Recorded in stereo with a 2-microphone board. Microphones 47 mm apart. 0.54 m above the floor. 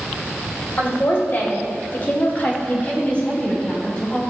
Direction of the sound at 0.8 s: 50° left (ahead or behind).